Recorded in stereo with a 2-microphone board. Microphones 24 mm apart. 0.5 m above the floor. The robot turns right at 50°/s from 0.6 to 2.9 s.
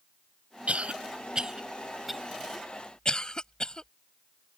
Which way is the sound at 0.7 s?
65° right (ahead or behind).